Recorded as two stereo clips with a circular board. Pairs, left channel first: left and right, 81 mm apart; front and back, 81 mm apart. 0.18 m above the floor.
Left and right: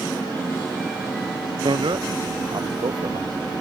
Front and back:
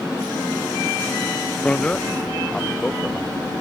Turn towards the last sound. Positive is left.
turn(degrees=-80)